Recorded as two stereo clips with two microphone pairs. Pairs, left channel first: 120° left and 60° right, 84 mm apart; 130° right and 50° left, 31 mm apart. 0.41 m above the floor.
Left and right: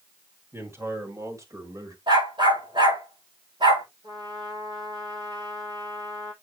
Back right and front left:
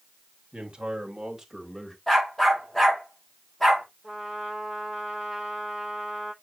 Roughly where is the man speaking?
Ahead.